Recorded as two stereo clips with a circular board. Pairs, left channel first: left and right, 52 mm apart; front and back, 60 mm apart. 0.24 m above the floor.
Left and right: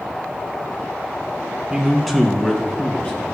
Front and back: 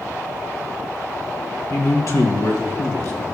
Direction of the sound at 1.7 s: 15° right.